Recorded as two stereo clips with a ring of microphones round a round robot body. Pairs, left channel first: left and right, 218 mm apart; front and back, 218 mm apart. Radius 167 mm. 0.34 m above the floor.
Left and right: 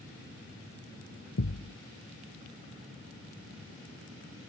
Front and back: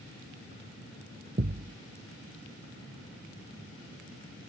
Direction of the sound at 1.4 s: 130° left.